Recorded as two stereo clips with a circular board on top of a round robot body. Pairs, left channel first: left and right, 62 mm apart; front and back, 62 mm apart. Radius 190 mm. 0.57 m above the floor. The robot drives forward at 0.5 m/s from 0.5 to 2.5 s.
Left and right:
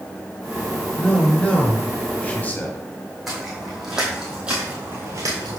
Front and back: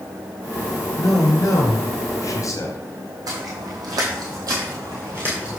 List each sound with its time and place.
1.0 s a man speaking: 15° left, 2.5 m; by 3.2 s 25° left, 1.7 m
3.3 s footsteps: 175° right, 2 m; by 5.6 s 95° right, 0.7 m